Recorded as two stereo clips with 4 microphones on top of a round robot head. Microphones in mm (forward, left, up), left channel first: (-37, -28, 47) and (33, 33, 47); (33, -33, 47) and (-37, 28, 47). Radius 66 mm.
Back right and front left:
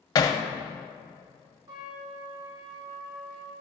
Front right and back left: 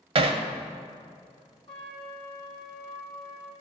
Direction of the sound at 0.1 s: 170° left.